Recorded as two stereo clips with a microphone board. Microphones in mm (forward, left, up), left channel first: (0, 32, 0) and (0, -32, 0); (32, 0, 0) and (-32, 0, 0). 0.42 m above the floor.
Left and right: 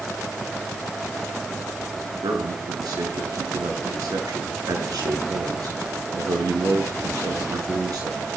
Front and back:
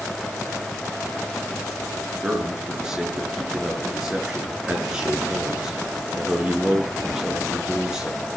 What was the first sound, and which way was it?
A man speaking, 100° right.